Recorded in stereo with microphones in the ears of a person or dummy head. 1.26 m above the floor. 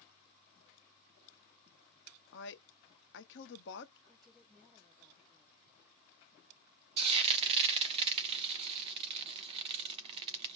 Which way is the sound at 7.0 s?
30° right (ahead or behind).